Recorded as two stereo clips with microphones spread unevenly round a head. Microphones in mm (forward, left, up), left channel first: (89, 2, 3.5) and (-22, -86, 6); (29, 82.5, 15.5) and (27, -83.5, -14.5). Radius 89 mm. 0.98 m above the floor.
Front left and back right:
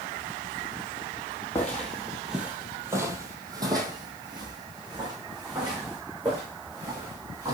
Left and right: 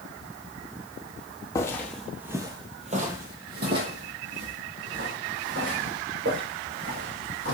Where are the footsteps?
105° left, 1.1 m; by 7.5 s 85° right, 4 m.